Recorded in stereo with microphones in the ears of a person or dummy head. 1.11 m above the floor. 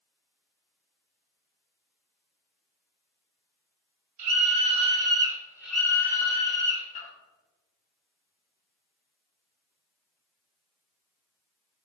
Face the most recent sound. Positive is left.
turn(degrees=35)  # may be behind; listen again after turning